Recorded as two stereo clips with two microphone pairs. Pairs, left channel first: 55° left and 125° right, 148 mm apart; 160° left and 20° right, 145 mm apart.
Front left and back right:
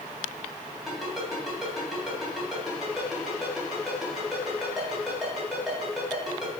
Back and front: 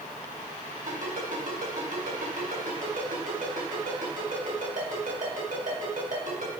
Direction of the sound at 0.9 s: 40° right.